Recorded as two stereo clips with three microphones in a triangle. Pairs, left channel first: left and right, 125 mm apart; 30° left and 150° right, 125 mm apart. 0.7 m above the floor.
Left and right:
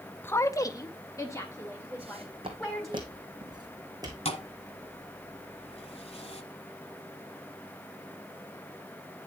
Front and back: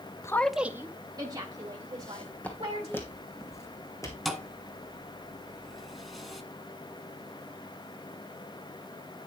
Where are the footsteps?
55° right, 1.9 m; by 4.2 s 30° right, 3 m.